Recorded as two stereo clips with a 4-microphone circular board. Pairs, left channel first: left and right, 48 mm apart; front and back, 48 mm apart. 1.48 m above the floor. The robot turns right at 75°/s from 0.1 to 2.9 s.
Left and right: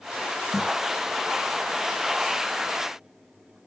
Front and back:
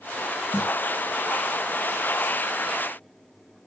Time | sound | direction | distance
0.5 | a snare drum | 15° right | 6 m